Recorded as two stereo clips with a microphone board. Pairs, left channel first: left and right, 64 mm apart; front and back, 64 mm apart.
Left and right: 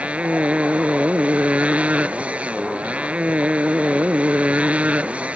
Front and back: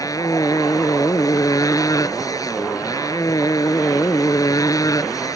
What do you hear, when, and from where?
0.0 s a motorcycle: 20° right